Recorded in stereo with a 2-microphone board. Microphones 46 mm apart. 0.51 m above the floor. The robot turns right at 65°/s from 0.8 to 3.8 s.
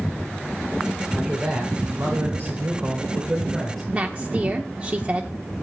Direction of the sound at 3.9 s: 30° right (ahead or behind).